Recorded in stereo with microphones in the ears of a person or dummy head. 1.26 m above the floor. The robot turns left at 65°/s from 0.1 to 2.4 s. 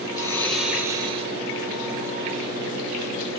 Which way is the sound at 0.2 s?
25° left.